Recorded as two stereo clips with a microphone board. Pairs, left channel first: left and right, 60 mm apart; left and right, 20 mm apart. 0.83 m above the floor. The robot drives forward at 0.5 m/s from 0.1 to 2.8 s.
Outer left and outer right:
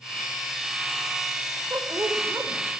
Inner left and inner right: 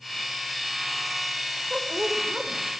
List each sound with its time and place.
1.7 s a woman speaking: 55° right (ahead or behind), 3.5 m; by 2.7 s 60° right (ahead or behind), 3.5 m